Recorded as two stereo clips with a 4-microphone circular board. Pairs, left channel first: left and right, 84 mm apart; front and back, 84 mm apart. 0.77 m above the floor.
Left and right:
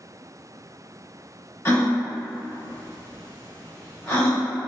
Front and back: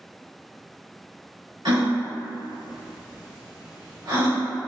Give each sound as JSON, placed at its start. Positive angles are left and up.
{"t": 1.6, "sound": "a gasp", "azimuth_deg": 150, "distance_m": 1.8}